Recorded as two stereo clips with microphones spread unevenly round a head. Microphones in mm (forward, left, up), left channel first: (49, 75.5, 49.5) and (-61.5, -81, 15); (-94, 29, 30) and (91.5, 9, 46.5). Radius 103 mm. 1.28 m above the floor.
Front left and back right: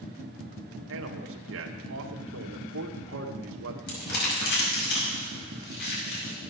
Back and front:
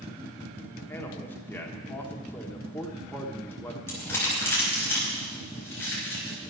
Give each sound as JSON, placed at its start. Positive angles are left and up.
{"t": 0.9, "sound": "a man speaking", "azimuth_deg": -105, "distance_m": 1.4}
{"t": 3.9, "sound": "crumpling", "azimuth_deg": 95, "distance_m": 5.5}